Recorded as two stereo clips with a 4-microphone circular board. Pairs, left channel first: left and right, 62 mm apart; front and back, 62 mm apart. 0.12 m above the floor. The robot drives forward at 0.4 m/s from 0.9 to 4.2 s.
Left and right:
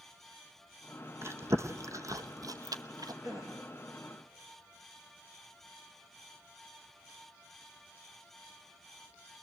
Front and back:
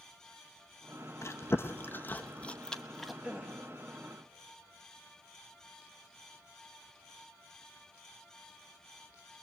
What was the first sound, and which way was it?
Chewing, 45° right.